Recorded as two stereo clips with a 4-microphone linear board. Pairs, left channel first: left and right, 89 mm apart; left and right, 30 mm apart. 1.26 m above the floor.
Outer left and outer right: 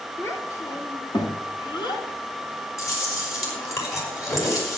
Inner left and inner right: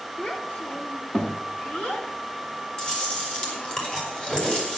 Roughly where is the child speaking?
Left.